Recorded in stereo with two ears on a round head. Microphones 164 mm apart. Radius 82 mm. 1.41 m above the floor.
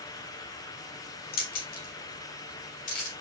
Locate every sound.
1.3 s keys jangling: 55° left (ahead or behind), 2 m; by 3.1 s 45° left (ahead or behind), 3.5 m